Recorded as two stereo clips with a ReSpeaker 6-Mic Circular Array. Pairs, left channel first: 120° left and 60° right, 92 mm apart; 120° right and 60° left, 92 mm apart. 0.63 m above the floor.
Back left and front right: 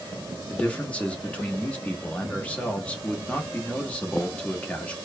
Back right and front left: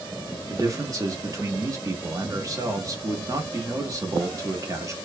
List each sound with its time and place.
0.5 s a man speaking: 55° left, 0.8 m